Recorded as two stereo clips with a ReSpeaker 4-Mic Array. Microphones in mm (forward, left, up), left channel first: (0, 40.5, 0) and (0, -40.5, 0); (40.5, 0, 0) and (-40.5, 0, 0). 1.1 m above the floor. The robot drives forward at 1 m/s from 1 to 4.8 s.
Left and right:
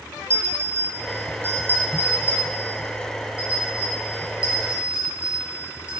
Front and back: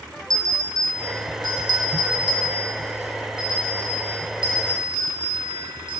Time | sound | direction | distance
0.3 | a bell | 145° right | 2 m